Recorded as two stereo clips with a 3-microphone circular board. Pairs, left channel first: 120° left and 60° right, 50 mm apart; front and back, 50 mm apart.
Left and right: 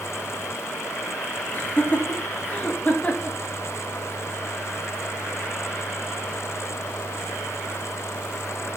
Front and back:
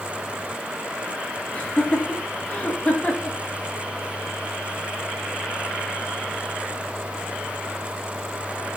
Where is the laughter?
65° left, 3 m; by 3.4 s 55° left, 2 m.